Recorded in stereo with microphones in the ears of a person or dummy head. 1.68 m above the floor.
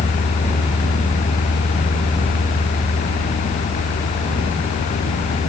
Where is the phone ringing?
I don't hear a phone ringing.